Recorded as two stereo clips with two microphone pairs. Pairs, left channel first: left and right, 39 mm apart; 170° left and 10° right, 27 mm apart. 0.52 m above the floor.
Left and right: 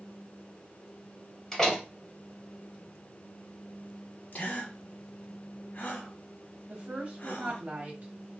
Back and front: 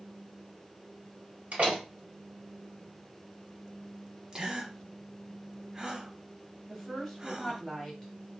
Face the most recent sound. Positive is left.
turn(degrees=-110)